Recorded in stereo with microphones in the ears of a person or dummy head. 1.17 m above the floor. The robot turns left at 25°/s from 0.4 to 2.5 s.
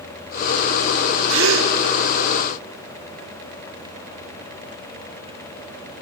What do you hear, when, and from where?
1.3 s a gasp: 70° right (ahead or behind), 1.0 m; by 1.7 s 75° right (ahead or behind), 1.0 m